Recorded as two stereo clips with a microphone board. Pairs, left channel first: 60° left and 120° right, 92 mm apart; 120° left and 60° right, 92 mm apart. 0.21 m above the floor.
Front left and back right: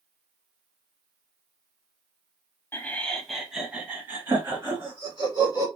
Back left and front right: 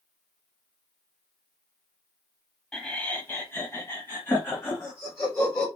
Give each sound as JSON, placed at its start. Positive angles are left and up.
{"t": 2.7, "sound": "laughter", "azimuth_deg": 50, "distance_m": 1.0}